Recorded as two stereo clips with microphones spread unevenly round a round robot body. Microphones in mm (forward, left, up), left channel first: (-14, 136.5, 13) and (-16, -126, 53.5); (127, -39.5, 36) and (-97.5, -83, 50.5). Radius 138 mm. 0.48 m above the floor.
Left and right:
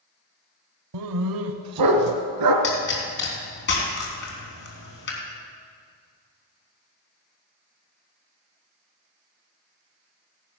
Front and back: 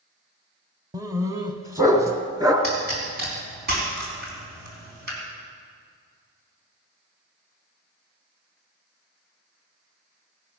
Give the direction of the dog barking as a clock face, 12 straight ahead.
3 o'clock.